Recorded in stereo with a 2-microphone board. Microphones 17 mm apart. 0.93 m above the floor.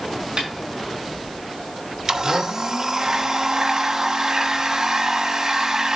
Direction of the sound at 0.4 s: 40° right (ahead or behind).